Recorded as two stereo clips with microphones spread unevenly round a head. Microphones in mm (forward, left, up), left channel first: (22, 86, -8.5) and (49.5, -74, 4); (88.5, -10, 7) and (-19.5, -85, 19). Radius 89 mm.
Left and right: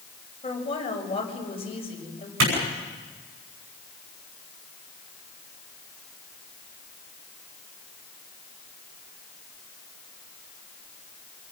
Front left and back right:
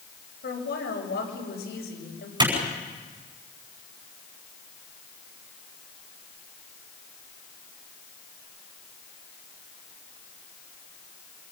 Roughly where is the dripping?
I don't hear dripping.